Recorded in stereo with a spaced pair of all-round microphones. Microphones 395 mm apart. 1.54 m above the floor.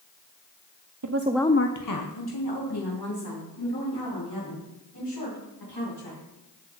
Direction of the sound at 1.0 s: 50° right (ahead or behind).